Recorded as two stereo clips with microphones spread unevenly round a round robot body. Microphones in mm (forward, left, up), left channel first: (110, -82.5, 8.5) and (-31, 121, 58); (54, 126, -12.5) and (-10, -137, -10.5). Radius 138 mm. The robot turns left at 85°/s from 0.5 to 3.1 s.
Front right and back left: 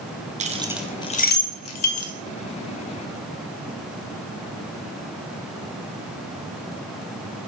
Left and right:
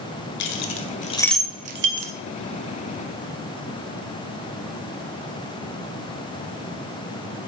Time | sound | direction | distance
0.4 | keys jangling | 60° left | 1.5 m